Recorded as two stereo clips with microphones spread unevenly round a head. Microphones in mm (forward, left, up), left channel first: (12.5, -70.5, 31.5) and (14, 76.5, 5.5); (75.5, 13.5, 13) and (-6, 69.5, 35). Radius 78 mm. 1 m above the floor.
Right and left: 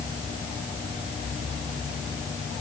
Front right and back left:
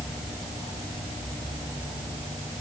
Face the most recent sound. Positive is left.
No sound to turn to.